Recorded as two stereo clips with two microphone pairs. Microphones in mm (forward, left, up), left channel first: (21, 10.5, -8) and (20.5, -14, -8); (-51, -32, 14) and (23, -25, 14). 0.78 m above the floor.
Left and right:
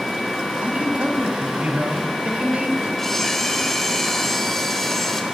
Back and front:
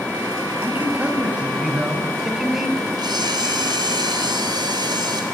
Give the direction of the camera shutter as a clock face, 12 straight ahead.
12 o'clock.